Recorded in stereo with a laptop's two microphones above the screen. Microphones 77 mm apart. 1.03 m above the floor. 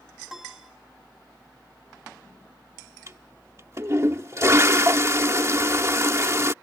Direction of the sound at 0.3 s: 5° right (ahead or behind).